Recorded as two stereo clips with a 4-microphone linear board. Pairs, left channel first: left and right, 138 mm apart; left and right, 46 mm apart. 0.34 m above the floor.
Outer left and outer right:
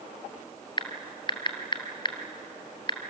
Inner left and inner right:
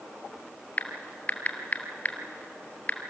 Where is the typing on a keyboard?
35° left (ahead or behind), 1.7 m.